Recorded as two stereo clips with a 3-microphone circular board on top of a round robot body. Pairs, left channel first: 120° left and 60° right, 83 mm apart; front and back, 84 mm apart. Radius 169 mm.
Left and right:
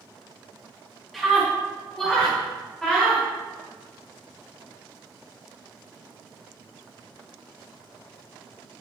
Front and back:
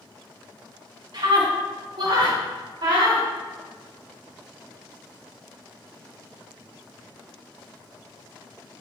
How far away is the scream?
About 4 m.